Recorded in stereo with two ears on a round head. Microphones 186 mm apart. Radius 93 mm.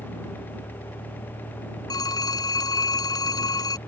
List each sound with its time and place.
0.0 s a vehicle: 10° left (ahead or behind)
1.9 s a phone ringing: 20° left (ahead or behind)